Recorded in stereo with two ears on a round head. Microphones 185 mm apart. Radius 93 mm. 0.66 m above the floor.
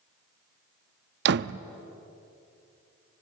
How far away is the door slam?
About 0.5 m.